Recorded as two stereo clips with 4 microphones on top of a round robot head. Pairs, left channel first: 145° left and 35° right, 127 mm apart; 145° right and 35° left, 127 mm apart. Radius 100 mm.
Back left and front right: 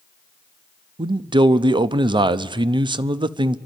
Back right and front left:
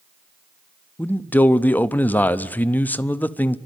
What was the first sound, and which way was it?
A man speaking, 70° right.